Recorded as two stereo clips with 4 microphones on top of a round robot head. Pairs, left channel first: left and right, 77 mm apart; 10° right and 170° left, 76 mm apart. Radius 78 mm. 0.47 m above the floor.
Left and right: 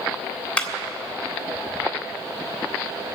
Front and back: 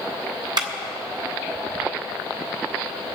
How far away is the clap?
About 1.9 m.